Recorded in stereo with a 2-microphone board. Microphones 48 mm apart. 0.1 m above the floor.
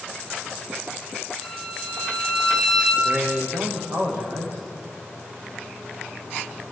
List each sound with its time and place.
1.4 s a violin: 15° right (ahead or behind), 6.5 m
3.0 s a man speaking: 50° right (ahead or behind), 7.5 m